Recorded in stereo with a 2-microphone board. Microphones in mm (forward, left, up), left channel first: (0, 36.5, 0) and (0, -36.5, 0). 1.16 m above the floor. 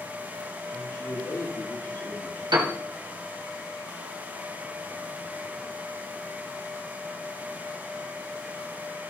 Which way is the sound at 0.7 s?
75° left (ahead or behind).